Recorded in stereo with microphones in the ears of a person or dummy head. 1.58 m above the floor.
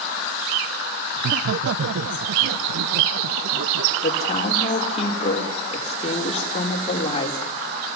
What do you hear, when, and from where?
1.2 s laughter: 60° right (ahead or behind), 0.6 m; by 3.9 s 65° right (ahead or behind), 2 m
4.0 s a woman speaking: 30° left (ahead or behind), 4.5 m